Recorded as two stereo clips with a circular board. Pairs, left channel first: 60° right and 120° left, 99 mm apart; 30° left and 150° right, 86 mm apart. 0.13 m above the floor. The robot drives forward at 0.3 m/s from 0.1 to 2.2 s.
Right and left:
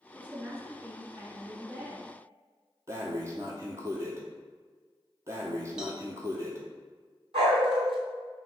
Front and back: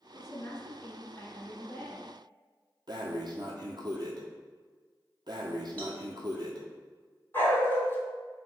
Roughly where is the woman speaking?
Ahead left.